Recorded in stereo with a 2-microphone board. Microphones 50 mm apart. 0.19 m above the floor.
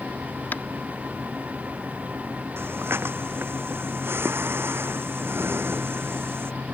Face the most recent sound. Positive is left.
turn(degrees=-50)  # may be behind; listen again after turning